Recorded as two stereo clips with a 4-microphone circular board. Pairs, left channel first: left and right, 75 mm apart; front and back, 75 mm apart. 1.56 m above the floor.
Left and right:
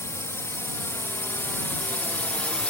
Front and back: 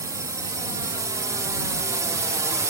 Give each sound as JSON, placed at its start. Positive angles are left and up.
{"t": 0.0, "sound": "a drone", "azimuth_deg": 140}